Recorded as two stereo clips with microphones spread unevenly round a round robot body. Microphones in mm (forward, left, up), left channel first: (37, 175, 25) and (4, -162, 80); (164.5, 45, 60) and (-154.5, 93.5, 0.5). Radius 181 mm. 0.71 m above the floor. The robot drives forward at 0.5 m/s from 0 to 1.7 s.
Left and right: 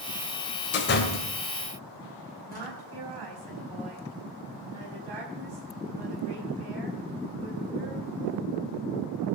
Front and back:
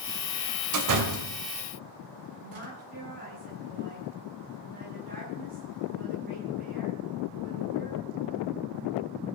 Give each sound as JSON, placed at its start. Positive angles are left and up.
{"t": 0.7, "sound": "a door slam", "azimuth_deg": 145, "distance_m": 2.0}
{"t": 2.4, "sound": "a woman speaking", "azimuth_deg": -125, "distance_m": 5.0}